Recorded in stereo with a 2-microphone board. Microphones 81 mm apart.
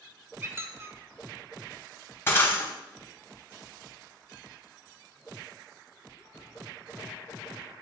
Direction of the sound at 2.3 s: 30° left (ahead or behind).